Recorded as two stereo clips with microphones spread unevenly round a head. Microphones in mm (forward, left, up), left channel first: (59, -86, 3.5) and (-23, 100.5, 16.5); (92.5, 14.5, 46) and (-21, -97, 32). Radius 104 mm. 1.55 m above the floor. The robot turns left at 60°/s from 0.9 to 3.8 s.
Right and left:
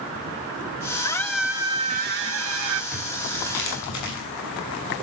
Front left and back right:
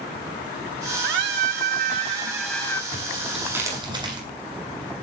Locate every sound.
1.0 s a scream: 135° right, 3.5 m; by 2.8 s 115° left, 3.5 m
2.9 s tearing paper: 20° right, 9.5 m; by 4.2 s 75° right, 9.5 m